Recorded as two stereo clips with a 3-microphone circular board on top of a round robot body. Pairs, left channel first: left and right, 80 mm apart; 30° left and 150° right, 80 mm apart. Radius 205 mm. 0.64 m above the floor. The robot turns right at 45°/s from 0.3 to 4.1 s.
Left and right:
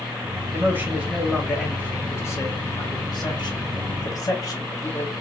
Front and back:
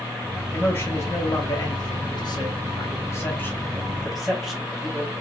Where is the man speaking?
40° right, 2 m; by 5.1 s 120° left, 2 m.